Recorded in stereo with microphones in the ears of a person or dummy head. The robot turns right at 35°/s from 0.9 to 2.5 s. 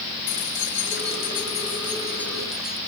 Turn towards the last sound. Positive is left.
turn(degrees=180)